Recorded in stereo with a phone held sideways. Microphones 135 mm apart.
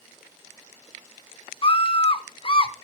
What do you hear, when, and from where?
1.6 s a scream: 40° left (ahead or behind), 0.7 m